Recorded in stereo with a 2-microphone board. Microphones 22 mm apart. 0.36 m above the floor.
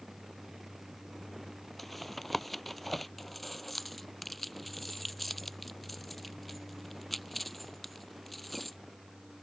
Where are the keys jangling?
10° left (ahead or behind).